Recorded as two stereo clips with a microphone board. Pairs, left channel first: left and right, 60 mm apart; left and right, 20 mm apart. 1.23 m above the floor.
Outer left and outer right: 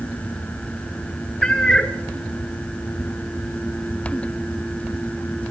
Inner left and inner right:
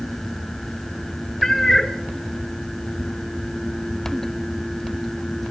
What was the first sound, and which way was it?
A cat meowing, 10° left (ahead or behind).